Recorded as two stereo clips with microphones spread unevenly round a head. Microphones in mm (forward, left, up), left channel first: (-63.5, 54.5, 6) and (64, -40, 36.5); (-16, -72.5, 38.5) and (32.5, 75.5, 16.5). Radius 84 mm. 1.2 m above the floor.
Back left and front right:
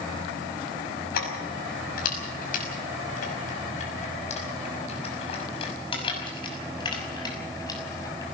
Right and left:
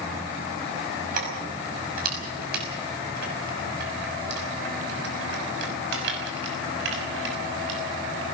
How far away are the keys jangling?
About 5.5 m.